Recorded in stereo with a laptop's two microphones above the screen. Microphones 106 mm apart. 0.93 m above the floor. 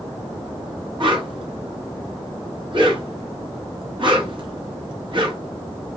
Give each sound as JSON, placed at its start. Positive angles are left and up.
{"t": 1.0, "sound": "a whoosh", "side_deg": -50, "distance_m": 0.8}